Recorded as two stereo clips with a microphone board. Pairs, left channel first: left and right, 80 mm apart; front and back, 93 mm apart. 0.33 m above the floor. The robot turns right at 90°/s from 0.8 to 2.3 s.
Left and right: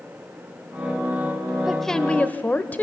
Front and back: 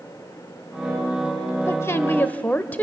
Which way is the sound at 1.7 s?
5° right.